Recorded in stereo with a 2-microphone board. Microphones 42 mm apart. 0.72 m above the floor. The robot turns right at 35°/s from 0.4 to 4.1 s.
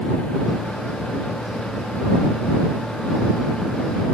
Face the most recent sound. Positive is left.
No sound to turn to.